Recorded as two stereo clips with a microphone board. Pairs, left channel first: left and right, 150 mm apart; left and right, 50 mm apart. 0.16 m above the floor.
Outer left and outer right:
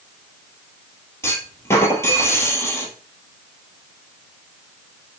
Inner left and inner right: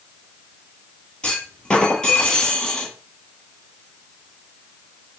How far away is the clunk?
About 1.6 m.